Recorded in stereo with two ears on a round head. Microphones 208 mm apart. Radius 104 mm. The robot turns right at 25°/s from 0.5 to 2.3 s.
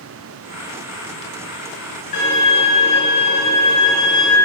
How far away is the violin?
About 1.9 m.